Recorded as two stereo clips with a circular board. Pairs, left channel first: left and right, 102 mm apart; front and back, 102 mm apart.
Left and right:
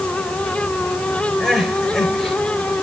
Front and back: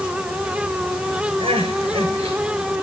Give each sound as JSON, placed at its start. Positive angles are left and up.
{"t": 1.4, "sound": "crying", "azimuth_deg": 175, "distance_m": 6.0}